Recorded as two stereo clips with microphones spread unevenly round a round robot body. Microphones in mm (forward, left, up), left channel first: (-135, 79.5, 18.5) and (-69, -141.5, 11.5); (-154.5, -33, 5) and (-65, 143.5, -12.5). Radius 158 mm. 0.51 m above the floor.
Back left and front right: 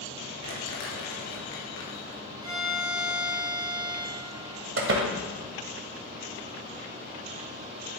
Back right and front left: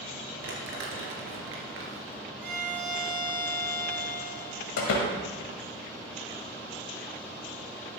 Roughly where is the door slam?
Right.